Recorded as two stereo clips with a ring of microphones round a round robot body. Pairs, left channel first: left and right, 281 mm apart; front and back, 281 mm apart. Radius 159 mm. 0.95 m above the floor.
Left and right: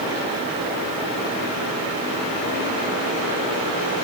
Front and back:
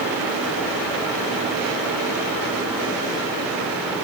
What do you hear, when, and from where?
Only background noise.